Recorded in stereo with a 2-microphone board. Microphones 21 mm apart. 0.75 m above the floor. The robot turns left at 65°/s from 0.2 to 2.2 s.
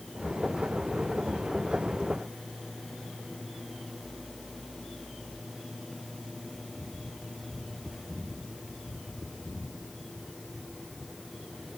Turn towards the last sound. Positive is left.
No sound to turn to.